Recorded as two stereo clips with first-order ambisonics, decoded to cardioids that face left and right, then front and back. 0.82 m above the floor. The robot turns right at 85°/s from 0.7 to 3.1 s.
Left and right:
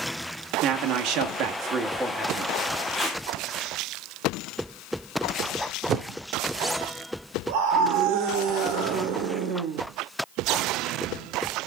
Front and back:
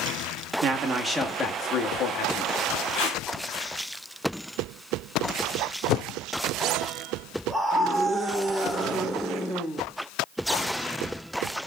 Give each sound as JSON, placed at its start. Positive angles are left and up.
{"t": 0.6, "sound": "a man speaking", "azimuth_deg": -130, "distance_m": 1.3}
{"t": 2.9, "sound": "tape being pulled", "azimuth_deg": 10, "distance_m": 7.0}
{"t": 5.9, "sound": "a whoosh", "azimuth_deg": -35, "distance_m": 0.6}
{"t": 7.5, "sound": "a scream", "azimuth_deg": -85, "distance_m": 2.0}